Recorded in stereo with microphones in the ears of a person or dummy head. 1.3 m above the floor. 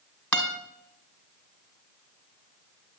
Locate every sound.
0.3 s a guitar: 5° left (ahead or behind), 1.8 m